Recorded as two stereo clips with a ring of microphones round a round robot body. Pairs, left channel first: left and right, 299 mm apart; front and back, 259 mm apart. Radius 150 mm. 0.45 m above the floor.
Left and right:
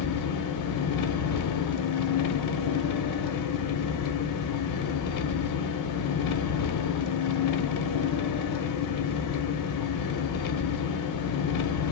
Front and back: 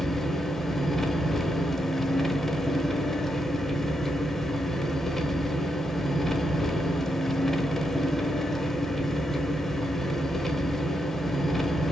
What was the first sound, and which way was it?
An engine running, 90° left.